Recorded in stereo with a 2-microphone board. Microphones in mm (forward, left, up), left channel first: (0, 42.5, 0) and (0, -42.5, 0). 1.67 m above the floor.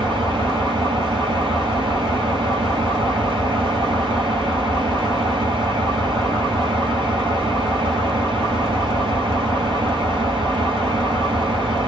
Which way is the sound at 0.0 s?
70° right (ahead or behind).